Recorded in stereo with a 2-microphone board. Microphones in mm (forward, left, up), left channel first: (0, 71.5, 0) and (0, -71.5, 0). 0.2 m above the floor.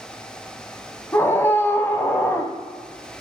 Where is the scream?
15° left (ahead or behind), 1.0 m.